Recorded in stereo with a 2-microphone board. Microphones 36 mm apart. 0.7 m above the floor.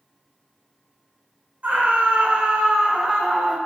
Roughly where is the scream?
Right.